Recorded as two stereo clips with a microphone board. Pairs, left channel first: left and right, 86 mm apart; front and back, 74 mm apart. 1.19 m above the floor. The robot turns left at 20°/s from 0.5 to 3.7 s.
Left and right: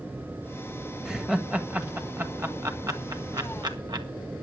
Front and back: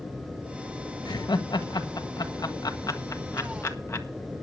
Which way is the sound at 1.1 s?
5° right.